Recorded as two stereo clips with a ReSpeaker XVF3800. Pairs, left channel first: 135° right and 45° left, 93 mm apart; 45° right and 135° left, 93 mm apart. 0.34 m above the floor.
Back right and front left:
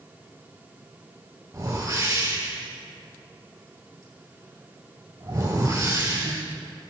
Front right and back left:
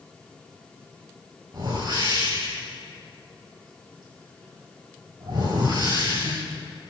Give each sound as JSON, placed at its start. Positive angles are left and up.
{"t": 1.5, "sound": "a whoosh", "azimuth_deg": 95, "distance_m": 3.0}